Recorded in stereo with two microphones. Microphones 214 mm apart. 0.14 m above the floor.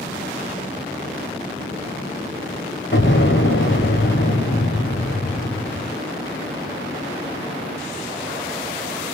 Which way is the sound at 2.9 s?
60° left (ahead or behind).